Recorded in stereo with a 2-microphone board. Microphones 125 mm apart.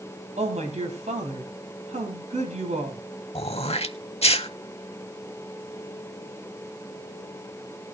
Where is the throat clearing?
55° left (ahead or behind), 0.7 m.